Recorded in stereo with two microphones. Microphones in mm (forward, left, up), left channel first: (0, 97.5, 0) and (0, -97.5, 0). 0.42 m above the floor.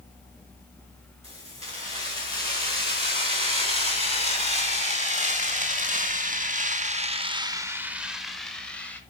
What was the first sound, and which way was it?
Keys jangling, 30° right (ahead or behind).